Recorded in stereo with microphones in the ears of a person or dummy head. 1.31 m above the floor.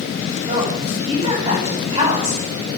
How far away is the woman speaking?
About 8.5 m.